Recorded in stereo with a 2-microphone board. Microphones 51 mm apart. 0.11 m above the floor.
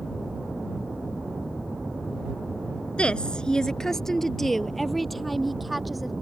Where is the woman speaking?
20° left (ahead or behind); by 6.1 s centre (ahead or behind).